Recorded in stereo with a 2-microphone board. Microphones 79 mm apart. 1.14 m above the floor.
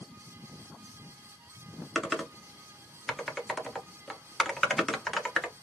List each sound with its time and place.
1.9 s typing on a keyboard: centre (ahead or behind), 0.7 m